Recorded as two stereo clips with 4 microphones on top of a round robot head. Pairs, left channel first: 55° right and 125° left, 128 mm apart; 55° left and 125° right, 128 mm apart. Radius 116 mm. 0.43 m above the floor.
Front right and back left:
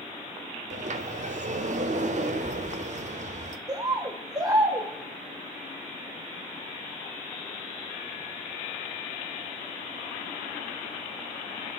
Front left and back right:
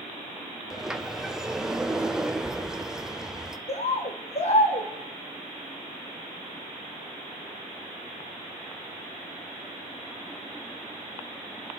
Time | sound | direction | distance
0.7 | a sliding door | 150° left | 0.9 m
3.7 | a bird | 70° left | 1.7 m